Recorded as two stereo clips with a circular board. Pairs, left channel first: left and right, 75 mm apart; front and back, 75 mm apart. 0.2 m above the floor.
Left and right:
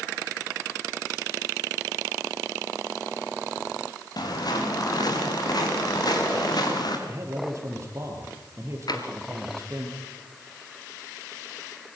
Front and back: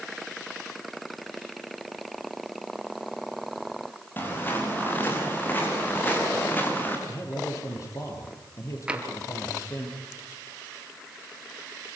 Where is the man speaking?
45° right, 5 m.